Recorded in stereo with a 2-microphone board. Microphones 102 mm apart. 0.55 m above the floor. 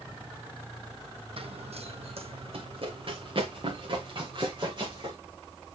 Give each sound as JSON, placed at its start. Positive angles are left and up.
{"t": 1.4, "sound": "running footsteps", "side_deg": -60, "distance_m": 1.3}